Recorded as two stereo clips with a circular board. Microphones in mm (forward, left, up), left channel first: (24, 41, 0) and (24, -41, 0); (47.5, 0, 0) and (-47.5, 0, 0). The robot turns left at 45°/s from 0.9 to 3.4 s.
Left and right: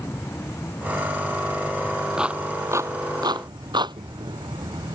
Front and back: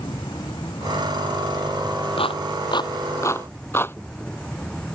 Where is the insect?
30° left; by 5.0 s 80° right.